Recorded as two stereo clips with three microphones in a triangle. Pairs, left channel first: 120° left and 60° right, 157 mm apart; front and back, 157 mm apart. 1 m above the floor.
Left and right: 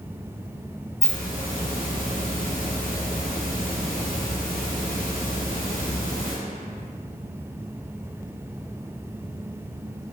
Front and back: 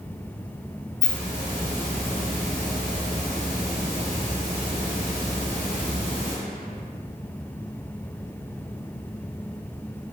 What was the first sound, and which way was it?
A hiss, 100° left.